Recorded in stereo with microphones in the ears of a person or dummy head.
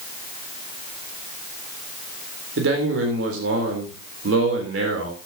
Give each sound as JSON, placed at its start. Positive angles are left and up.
{"t": 2.6, "sound": "a man speaking", "side_deg": -80, "distance_m": 3.5}